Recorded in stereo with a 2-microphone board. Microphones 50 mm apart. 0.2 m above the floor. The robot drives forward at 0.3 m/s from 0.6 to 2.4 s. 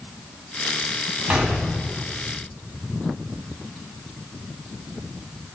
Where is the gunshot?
30° right (ahead or behind), 0.9 m.